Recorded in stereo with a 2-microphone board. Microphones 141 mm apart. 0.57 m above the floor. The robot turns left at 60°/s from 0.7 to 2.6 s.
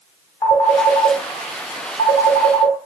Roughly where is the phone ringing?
Left.